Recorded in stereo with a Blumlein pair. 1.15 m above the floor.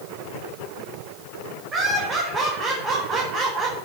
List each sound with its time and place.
1.7 s laughter: 20° right, 4 m